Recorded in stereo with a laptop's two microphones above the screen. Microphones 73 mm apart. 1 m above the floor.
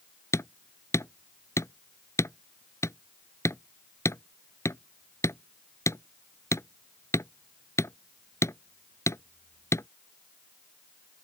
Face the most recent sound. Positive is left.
turn(degrees=40)  # may be behind; listen again after turning